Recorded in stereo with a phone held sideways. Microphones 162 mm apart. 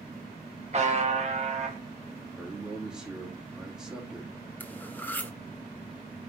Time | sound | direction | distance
0.7 | a buzzer | 45° right (ahead or behind) | 1.3 m
2.4 | a man speaking | 5° right (ahead or behind) | 2.5 m
4.6 | cutlery clinking | 10° left (ahead or behind) | 0.9 m